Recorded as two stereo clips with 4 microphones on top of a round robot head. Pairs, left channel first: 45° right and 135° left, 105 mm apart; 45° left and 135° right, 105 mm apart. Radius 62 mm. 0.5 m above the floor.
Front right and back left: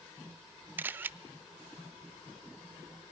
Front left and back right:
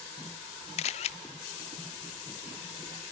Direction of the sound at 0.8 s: 60° left.